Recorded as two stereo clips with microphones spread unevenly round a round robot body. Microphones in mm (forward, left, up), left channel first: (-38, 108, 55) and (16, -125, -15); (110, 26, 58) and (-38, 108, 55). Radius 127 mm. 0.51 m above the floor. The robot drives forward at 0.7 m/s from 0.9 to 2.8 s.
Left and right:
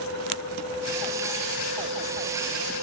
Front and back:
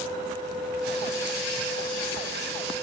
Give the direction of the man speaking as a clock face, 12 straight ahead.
No man speaking in this recording.